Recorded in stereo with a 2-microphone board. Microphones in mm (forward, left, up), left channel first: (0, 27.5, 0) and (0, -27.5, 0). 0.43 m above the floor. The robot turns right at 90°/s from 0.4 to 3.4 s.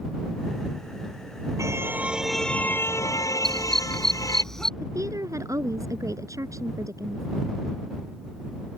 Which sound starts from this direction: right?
A woman speaking, at 4.8 s.